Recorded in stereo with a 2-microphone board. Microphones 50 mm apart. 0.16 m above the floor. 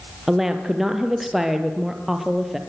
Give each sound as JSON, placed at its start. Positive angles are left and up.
{"t": 0.3, "sound": "a woman speaking", "side_deg": -5, "distance_m": 3.0}